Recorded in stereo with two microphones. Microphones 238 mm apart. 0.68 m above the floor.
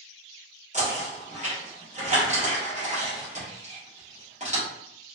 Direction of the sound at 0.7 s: 30° right (ahead or behind).